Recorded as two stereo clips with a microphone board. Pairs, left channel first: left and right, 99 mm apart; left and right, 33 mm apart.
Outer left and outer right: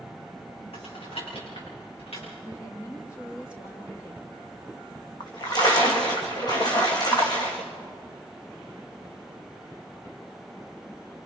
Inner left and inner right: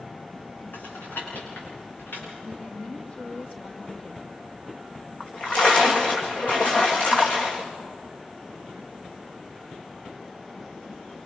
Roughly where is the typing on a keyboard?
Left.